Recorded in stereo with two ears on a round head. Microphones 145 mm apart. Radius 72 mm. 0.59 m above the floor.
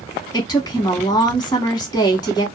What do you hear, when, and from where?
0.3 s a woman speaking: 25° left (ahead or behind), 1.1 m